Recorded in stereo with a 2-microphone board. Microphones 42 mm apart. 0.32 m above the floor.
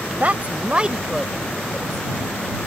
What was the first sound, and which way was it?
A woman speaking, 40° right (ahead or behind).